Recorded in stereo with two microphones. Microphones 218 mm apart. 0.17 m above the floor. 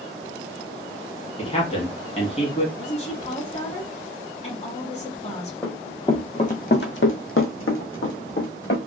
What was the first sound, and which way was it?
A man speaking, 30° left (ahead or behind).